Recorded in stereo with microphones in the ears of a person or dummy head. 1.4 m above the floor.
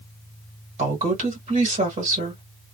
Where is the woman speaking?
40° right (ahead or behind), 1.8 m.